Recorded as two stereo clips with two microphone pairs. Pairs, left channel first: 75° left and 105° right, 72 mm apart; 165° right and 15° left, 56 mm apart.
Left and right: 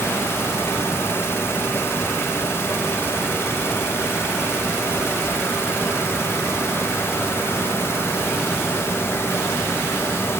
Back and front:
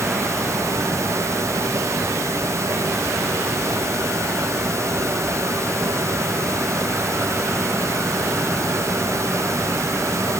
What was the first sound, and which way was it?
Only background noise.